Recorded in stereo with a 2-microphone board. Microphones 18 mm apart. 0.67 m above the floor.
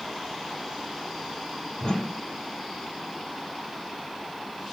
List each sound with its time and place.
1.8 s a whoosh: 55° left (ahead or behind), 1.6 m